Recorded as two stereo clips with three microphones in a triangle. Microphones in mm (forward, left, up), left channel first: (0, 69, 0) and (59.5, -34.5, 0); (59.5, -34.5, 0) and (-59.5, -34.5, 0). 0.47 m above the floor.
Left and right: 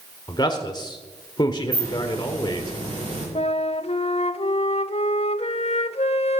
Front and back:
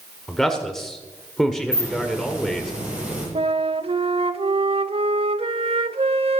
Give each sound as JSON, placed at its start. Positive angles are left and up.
{"t": 0.3, "sound": "a man speaking", "azimuth_deg": 85, "distance_m": 1.5}
{"t": 1.7, "sound": "a hiss", "azimuth_deg": -100, "distance_m": 10.0}
{"t": 3.4, "sound": "a flute", "azimuth_deg": 145, "distance_m": 0.6}